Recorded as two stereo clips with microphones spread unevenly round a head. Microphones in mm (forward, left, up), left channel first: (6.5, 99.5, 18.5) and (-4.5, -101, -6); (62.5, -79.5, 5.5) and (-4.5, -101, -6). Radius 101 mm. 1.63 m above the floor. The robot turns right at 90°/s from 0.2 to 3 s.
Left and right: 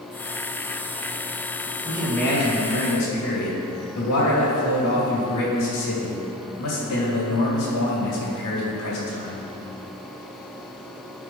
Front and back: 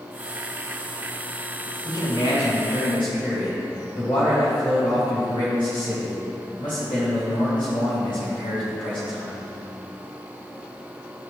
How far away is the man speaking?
About 3 m.